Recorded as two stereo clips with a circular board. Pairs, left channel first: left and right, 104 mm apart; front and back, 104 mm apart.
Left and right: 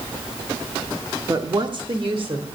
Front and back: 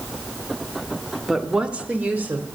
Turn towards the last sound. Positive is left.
turn(degrees=-110)